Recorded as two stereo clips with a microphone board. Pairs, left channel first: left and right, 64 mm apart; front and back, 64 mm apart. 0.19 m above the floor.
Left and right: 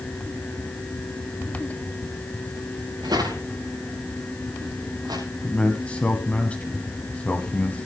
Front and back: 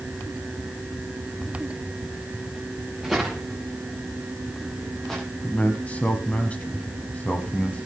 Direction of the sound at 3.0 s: 90° right.